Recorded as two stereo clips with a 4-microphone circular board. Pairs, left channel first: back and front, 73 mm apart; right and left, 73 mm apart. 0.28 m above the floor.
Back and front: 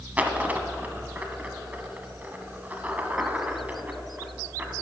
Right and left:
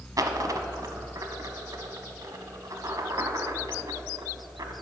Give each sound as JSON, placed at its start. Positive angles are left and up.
{"t": 0.2, "sound": "a dropped coin", "azimuth_deg": 65, "distance_m": 1.0}